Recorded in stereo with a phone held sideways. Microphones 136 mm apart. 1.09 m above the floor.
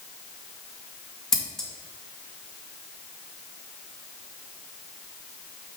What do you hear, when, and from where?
1.3 s scissors: 5° left (ahead or behind), 1.8 m